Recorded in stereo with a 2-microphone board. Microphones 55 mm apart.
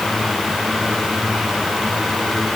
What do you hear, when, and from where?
Only background noise.